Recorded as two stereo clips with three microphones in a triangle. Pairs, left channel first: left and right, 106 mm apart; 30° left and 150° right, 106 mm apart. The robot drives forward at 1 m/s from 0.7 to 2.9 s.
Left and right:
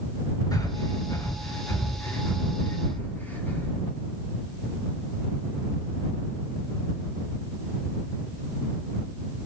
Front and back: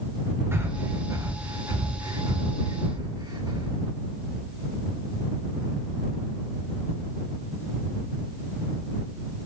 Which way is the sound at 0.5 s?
145° left.